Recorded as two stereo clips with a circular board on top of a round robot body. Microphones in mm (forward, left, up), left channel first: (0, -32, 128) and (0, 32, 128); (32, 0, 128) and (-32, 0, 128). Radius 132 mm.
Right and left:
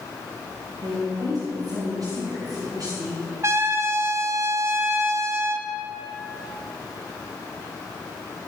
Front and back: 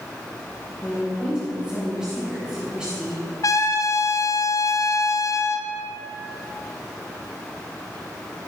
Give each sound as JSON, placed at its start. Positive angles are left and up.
{"t": 0.8, "sound": "a woman speaking", "azimuth_deg": 105, "distance_m": 3.5}
{"t": 3.4, "sound": "a trumpet", "azimuth_deg": 40, "distance_m": 0.7}